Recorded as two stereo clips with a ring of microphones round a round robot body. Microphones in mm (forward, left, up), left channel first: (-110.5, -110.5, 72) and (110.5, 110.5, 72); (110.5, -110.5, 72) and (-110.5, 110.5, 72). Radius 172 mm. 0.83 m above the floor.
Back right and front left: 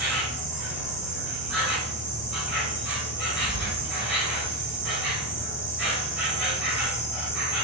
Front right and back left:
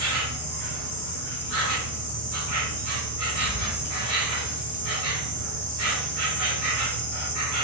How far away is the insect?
About 2.0 m.